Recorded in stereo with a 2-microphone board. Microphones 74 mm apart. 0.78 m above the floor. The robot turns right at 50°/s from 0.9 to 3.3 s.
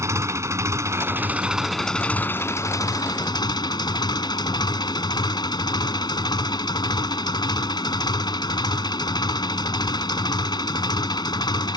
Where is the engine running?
40° right; by 11.8 s 80° left.